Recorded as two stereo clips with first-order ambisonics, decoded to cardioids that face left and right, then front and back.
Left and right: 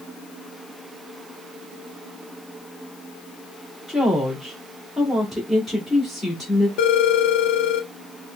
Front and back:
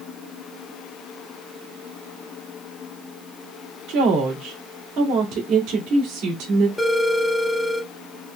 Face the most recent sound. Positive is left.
turn(degrees=85)